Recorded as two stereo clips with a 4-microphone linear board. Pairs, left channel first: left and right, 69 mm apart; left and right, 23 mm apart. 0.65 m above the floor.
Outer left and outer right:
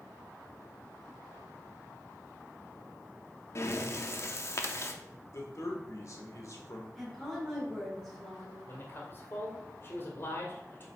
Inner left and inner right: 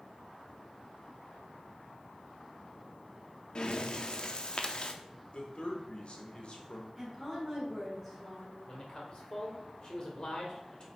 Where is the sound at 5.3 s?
55° left (ahead or behind), 1.7 m.